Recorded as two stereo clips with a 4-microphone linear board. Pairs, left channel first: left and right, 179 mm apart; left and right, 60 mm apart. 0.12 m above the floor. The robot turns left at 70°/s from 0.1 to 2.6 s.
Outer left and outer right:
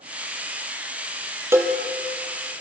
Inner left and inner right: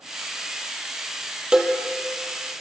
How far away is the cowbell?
About 1.1 m.